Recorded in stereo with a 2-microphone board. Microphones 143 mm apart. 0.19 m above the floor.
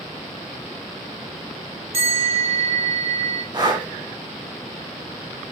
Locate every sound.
1.9 s a bell: 40° right (ahead or behind), 1.5 m
3.5 s breathing: 30° right (ahead or behind), 0.8 m